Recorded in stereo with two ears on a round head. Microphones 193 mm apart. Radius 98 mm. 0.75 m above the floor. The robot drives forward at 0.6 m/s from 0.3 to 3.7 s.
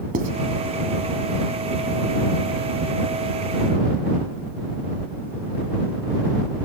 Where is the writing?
40° right (ahead or behind), 1.4 m.